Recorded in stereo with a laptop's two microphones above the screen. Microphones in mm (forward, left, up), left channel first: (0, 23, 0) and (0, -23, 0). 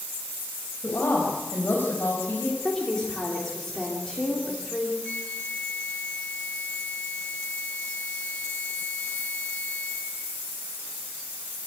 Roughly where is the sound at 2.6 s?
Centre.